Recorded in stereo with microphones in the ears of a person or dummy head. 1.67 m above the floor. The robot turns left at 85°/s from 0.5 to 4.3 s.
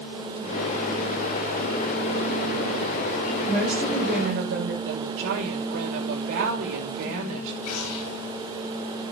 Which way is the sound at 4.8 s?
65° right (ahead or behind).